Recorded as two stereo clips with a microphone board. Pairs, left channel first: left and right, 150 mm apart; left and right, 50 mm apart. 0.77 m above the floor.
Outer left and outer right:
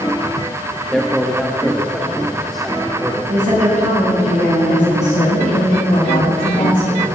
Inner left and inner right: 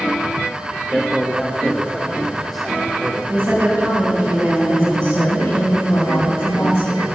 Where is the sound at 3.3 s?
60° right (ahead or behind), 5 m.